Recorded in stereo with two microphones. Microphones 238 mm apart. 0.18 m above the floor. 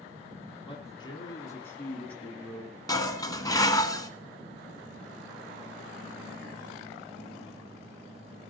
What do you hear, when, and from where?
0.6 s a man speaking: 25° left (ahead or behind), 1.3 m; by 2.8 s centre (ahead or behind), 1.7 m
2.9 s dishes clattering: 15° left (ahead or behind), 1.1 m